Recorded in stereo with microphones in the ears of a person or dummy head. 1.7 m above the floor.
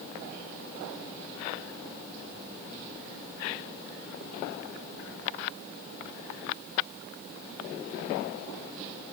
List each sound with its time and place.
Only background noise.